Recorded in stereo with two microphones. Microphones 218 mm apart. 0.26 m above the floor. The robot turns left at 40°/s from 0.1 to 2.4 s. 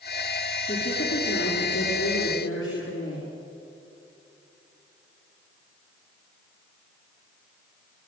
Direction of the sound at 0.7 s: 145° left.